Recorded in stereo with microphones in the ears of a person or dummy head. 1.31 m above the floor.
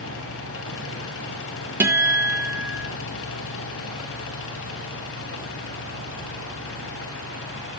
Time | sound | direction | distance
0.0 | a fan | 60° left (ahead or behind) | 1.6 m
1.8 | a guitar | 10° right (ahead or behind) | 1.0 m